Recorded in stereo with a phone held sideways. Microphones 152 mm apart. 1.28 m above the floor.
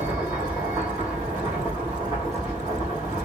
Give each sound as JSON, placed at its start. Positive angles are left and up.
{"t": 0.0, "sound": "a machine running", "side_deg": -15, "distance_m": 1.8}